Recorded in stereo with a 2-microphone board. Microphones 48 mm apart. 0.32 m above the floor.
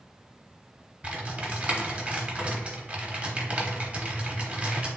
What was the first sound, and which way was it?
Typing on a keyboard, 25° right (ahead or behind).